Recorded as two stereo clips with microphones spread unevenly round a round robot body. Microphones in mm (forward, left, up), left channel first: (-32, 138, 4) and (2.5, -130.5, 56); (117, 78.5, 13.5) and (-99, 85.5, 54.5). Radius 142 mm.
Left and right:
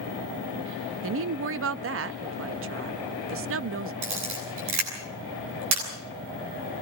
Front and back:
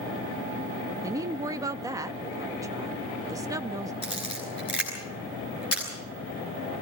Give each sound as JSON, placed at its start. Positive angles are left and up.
{"t": 1.0, "sound": "a woman speaking", "azimuth_deg": -100, "distance_m": 0.7}
{"t": 4.0, "sound": "a camera shutter", "azimuth_deg": -75, "distance_m": 9.5}